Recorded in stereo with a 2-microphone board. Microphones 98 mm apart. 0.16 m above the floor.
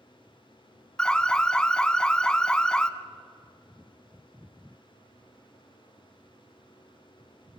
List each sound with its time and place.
1.0 s an alarm: 10° left (ahead or behind), 0.9 m